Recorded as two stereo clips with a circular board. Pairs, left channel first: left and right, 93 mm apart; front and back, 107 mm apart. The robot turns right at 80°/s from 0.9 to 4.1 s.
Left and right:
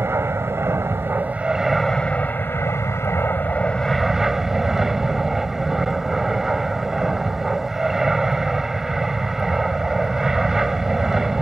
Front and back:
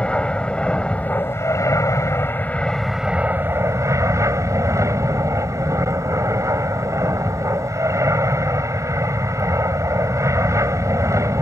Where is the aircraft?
70° right; by 11.4 s 170° right.